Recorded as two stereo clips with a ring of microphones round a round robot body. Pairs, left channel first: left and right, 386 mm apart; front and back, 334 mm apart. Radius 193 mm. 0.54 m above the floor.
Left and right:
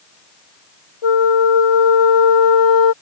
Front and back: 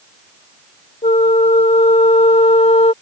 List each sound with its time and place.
1.0 s a flute: 70° left